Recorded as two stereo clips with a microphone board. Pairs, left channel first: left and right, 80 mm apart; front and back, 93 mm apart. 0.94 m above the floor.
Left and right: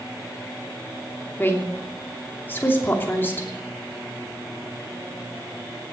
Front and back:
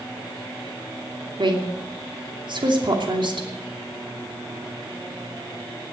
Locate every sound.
1.4 s a woman speaking: 155° left, 2.5 m